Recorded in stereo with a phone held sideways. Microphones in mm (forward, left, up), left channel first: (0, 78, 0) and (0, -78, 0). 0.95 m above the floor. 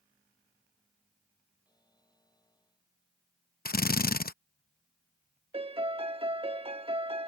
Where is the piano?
35° right (ahead or behind).